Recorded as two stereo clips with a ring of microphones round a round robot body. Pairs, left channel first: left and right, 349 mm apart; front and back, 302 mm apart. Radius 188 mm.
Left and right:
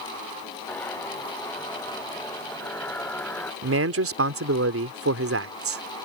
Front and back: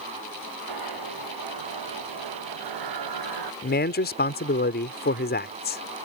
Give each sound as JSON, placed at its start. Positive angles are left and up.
{"t": 0.7, "sound": "a zipper", "azimuth_deg": 175}
{"t": 3.6, "sound": "a man speaking", "azimuth_deg": -50}